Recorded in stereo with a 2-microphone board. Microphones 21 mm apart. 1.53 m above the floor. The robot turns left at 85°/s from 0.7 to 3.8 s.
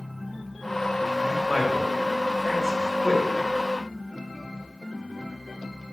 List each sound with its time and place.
1.2 s a man speaking: 90° left, 3.5 m; by 3.2 s 80° right, 3.5 m